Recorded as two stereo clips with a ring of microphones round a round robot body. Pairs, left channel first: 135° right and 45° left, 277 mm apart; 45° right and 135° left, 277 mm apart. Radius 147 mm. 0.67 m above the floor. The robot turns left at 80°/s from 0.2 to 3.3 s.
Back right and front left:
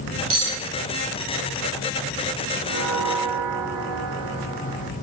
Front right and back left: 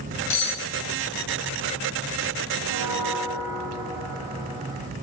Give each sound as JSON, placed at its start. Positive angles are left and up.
{"t": 0.3, "sound": "cutlery clinking", "azimuth_deg": 5, "distance_m": 2.0}
{"t": 2.6, "sound": "a bell", "azimuth_deg": 110, "distance_m": 1.6}